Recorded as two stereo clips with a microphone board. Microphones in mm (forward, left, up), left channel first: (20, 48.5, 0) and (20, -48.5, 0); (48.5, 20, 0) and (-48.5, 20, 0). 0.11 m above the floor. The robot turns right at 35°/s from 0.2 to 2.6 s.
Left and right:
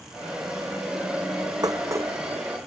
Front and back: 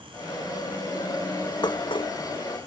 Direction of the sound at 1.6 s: 40° right.